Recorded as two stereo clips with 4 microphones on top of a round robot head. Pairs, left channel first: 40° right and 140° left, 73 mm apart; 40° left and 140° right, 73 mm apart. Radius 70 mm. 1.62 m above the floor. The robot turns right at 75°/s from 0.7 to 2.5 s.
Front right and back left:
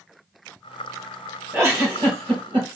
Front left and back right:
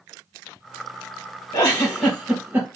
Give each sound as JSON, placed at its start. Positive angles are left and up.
{"t": 1.5, "sound": "a giggle", "azimuth_deg": 80, "distance_m": 2.5}